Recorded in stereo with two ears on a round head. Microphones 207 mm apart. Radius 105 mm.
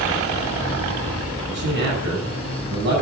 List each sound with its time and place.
1.5 s a man speaking: 60° right (ahead or behind), 7 m